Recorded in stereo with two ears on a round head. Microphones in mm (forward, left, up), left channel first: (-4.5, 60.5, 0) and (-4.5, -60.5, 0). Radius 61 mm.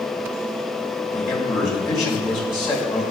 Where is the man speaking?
35° left (ahead or behind), 2.5 m.